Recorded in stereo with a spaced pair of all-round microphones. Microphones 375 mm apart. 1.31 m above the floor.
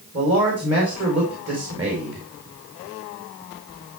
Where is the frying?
I don't hear frying.